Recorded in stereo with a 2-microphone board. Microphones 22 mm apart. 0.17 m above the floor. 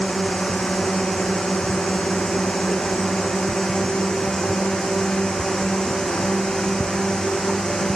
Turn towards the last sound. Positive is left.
turn(degrees=35)  # may be behind; listen again after turning